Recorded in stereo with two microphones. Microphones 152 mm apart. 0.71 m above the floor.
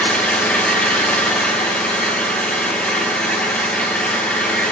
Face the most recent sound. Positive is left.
turn(degrees=10)  # may be behind; listen again after turning